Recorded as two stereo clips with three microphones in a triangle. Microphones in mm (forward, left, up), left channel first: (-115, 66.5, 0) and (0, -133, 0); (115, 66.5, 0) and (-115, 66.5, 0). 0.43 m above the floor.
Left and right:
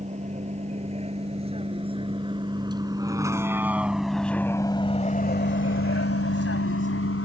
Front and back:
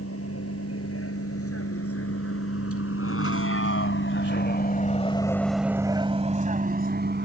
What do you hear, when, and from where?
0.0 s a vehicle: straight ahead; by 7.3 s 140° left